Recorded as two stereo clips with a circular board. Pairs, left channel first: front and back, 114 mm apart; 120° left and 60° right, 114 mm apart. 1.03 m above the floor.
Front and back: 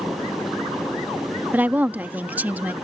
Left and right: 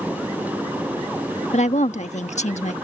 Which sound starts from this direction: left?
A woman speaking, at 1.5 s.